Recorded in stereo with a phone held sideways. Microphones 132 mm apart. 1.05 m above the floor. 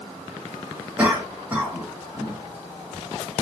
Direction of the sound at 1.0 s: 15° right (ahead or behind).